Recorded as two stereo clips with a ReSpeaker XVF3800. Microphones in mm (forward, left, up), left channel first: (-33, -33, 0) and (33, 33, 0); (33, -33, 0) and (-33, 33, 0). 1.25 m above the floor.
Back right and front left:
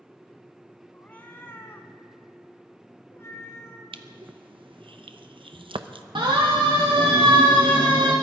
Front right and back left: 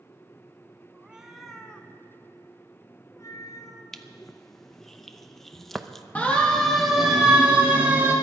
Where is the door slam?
I don't hear a door slam.